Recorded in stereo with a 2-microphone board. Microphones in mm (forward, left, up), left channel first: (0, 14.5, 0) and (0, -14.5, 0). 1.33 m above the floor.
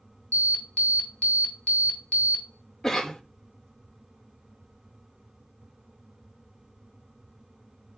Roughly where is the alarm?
Left.